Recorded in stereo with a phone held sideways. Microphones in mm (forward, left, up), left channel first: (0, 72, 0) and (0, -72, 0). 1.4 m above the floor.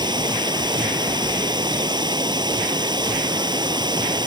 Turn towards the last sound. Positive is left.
turn(degrees=-30)  # may be behind; listen again after turning